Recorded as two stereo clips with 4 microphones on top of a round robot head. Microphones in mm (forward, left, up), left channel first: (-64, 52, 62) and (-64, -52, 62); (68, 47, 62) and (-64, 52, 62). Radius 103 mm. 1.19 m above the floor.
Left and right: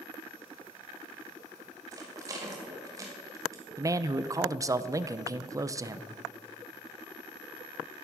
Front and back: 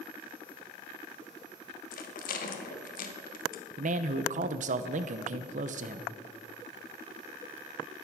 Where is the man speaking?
150° right, 0.7 m.